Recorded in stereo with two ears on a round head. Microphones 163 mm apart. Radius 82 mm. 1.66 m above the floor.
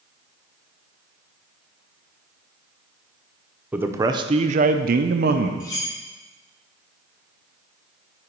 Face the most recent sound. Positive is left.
turn(degrees=20)  # may be behind; listen again after turning